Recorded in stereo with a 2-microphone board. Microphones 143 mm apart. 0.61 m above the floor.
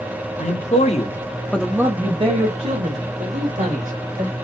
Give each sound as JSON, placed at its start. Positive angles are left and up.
{"t": 0.4, "sound": "a man speaking", "side_deg": 60, "distance_m": 1.3}